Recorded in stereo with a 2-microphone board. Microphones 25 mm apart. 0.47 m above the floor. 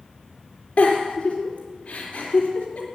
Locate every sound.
0.8 s a giggle: 65° left (ahead or behind), 3 m